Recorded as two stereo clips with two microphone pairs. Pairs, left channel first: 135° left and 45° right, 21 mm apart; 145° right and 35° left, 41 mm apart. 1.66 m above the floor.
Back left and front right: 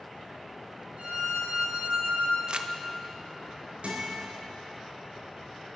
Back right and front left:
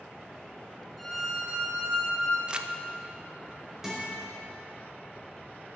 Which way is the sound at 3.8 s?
45° right.